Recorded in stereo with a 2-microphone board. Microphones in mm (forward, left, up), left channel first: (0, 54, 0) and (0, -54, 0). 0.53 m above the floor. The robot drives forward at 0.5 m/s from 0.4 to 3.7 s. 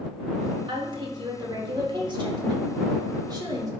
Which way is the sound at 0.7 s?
45° right (ahead or behind).